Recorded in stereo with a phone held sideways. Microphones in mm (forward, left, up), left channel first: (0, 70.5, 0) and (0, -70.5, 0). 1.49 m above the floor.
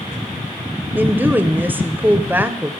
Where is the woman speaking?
15° right (ahead or behind), 0.7 m.